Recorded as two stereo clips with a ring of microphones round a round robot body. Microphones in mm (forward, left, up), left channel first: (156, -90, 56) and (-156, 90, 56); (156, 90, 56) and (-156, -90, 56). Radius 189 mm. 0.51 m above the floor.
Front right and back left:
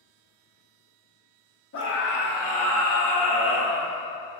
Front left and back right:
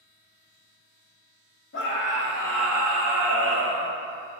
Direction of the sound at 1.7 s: 5° right.